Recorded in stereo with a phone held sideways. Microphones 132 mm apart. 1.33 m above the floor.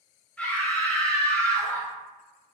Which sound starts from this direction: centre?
A scream, at 0.4 s.